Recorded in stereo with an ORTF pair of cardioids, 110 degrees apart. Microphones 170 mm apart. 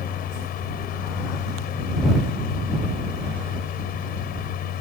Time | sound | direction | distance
0.0 | a fan | 65° left | ?